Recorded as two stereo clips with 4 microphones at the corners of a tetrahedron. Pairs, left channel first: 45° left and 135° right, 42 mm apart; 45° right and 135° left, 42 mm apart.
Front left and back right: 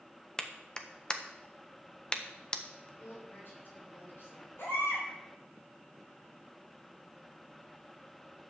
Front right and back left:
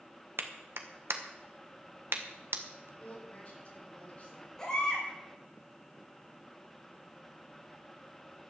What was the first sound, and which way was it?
A clap, 115° left.